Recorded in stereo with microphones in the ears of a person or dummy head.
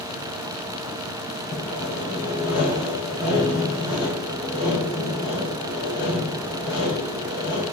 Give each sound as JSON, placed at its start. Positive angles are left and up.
{"t": 1.5, "sound": "sawing", "side_deg": 65, "distance_m": 5.5}